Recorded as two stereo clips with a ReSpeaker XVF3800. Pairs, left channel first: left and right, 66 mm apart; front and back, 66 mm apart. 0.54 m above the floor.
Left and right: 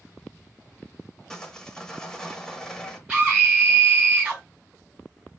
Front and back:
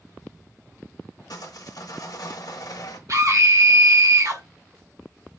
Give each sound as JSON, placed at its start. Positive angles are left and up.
{"t": 1.3, "sound": "sawing", "azimuth_deg": 10, "distance_m": 1.0}
{"t": 3.1, "sound": "a scream", "azimuth_deg": -160, "distance_m": 3.0}